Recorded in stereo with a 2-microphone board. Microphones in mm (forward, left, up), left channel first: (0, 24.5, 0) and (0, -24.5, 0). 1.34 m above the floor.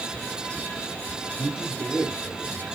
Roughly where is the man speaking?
Right.